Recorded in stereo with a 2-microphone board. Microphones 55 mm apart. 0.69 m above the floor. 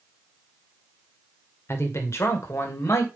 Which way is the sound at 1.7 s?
55° left (ahead or behind).